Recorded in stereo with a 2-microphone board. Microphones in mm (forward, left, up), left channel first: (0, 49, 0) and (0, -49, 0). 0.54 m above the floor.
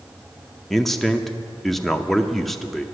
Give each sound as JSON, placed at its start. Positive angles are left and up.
{"t": 0.7, "sound": "a man speaking", "side_deg": 5, "distance_m": 0.7}